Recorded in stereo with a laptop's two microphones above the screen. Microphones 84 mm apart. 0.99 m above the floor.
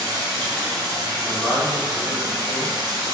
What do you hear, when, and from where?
0.0 s running water: 50° right (ahead or behind), 1.3 m
1.2 s a man speaking: 10° right (ahead or behind), 1.3 m